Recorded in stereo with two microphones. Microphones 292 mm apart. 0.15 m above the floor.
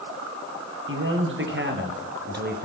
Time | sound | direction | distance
0.9 | a man speaking | 45° right (ahead or behind) | 3.5 m